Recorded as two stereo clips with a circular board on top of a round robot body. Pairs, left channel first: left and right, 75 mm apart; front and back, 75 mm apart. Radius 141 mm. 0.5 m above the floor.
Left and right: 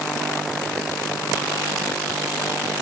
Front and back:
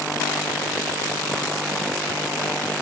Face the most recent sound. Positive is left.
No sound to turn to.